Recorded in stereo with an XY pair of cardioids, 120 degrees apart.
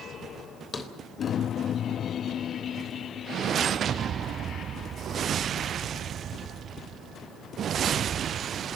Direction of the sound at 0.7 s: 30° left.